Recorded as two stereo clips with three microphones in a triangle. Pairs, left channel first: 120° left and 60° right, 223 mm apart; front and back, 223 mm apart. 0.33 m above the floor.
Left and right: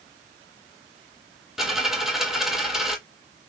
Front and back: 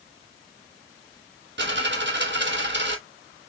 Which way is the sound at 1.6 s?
150° right.